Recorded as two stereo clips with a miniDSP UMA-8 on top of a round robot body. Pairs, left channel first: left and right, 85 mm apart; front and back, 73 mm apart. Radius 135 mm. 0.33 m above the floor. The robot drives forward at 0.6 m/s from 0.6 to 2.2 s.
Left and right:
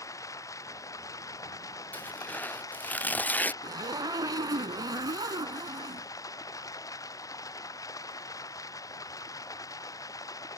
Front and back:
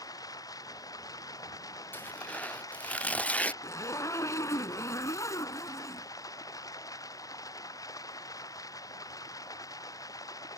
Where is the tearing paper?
35° left; by 3.5 s 45° left.